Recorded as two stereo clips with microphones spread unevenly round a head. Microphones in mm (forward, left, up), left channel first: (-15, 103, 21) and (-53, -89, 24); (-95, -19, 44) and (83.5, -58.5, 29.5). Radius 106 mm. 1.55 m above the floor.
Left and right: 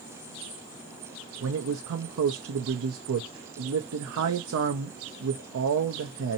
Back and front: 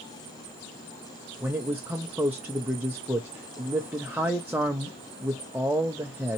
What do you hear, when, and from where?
1.4 s a man speaking: 90° right, 0.7 m